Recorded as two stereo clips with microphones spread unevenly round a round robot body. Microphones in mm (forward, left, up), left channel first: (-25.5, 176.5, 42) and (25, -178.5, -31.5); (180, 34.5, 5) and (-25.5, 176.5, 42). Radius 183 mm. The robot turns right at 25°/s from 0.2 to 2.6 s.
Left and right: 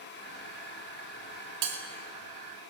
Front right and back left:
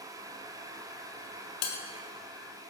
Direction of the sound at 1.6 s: 45° right.